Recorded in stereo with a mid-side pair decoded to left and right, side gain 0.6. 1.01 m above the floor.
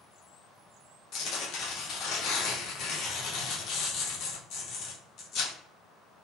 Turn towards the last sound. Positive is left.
turn(degrees=60)